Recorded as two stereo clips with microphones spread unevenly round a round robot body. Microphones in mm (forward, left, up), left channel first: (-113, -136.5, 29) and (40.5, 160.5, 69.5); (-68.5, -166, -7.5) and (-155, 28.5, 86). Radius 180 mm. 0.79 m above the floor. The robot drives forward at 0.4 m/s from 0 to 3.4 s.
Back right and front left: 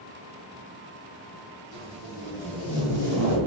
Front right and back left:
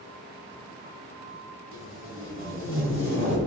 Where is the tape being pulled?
65° right, 3.5 m; by 3.4 s 75° right, 3.5 m.